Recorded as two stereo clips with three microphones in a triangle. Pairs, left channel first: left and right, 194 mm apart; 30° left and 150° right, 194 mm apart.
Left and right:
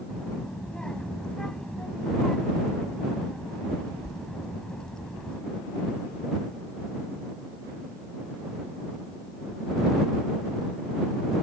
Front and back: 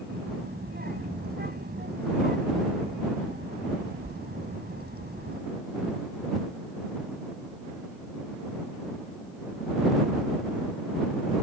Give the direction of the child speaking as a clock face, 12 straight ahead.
6 o'clock.